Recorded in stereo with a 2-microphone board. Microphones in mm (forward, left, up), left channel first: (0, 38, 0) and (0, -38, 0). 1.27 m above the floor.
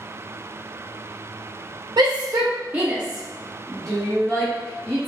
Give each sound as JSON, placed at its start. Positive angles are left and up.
{"t": 2.0, "sound": "a shout", "side_deg": -60, "distance_m": 0.5}